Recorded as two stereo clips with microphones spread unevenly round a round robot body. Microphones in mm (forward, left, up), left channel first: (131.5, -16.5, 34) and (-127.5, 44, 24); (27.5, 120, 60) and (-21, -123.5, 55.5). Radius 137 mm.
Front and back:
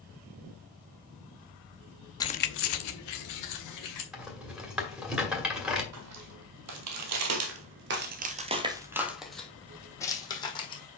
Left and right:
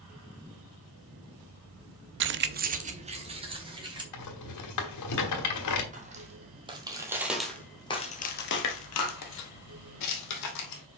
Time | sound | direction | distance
2.2 | keys jangling | 90° right | 0.5 m
4.1 | a rattle | 80° left | 1.7 m
5.9 | footsteps | 160° right | 1.5 m